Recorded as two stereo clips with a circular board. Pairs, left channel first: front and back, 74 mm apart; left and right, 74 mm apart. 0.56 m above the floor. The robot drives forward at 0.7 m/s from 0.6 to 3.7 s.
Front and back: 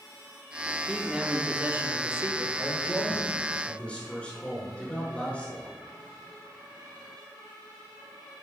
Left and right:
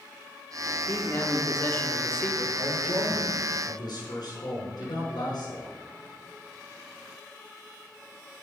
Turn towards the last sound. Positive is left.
turn(degrees=75)